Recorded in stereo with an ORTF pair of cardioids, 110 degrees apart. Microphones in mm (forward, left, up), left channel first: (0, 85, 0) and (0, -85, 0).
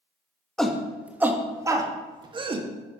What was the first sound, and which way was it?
A shout, 5° left.